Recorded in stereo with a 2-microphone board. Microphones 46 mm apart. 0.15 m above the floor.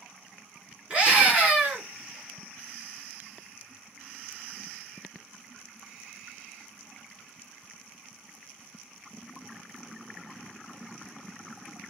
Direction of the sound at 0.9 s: 25° right (ahead or behind).